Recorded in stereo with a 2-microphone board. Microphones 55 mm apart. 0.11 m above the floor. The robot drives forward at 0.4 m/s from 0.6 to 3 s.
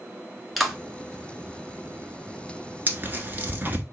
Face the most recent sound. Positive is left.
turn(degrees=-35)  # may be behind; listen again after turning